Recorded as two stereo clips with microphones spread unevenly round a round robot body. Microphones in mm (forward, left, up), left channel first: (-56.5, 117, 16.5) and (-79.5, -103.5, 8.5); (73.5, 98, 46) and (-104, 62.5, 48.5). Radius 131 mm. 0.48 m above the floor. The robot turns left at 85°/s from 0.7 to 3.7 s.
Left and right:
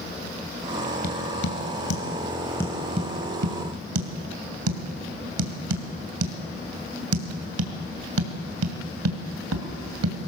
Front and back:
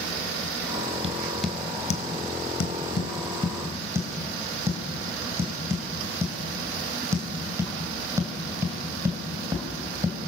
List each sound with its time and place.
1.0 s tapping: 135° left, 2.5 m; by 10.3 s 90° right, 2.5 m